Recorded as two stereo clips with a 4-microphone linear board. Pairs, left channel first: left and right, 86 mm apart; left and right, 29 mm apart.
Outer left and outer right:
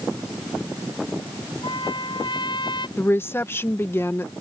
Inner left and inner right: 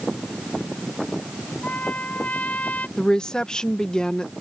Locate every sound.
1.6 s a trumpet: 65° left (ahead or behind)
3.0 s a woman speaking: 25° left (ahead or behind)